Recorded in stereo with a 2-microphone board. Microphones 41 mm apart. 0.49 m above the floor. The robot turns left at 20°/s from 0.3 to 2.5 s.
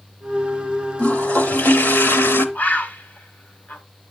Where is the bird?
40° left (ahead or behind), 0.9 m.